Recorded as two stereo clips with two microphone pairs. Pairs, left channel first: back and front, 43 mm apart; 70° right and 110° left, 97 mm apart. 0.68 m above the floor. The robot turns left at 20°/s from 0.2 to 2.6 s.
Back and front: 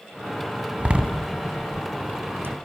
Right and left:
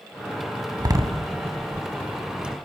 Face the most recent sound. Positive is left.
turn(degrees=25)